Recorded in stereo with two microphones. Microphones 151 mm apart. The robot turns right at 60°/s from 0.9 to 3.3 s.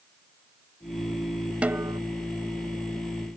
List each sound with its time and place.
1.6 s a snare drum: 10° right (ahead or behind); by 2.0 s 30° right (ahead or behind)